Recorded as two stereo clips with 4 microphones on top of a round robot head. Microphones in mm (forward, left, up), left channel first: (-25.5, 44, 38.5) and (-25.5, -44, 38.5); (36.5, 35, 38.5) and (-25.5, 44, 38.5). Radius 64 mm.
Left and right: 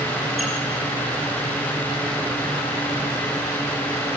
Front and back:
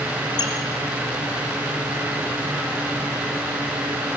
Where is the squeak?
Straight ahead, 2.5 m.